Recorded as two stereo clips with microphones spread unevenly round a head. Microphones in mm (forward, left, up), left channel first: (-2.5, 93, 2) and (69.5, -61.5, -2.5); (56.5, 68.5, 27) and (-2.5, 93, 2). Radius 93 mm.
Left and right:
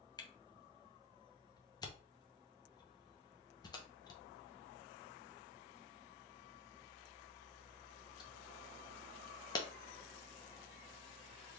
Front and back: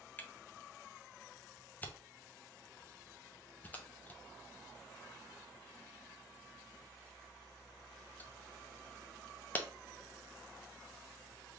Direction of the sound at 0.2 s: 50° left.